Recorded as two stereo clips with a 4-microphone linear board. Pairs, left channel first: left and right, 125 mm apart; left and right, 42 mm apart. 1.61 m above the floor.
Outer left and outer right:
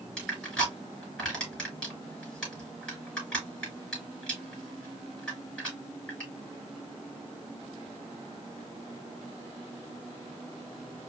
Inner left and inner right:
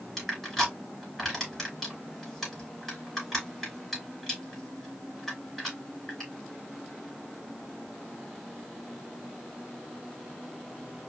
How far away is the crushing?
About 3.5 m.